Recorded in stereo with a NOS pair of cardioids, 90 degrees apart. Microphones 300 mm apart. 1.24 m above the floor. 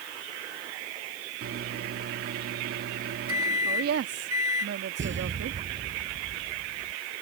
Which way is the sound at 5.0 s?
40° right.